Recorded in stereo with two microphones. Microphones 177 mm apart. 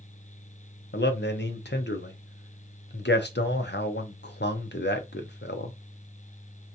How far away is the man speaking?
About 0.7 m.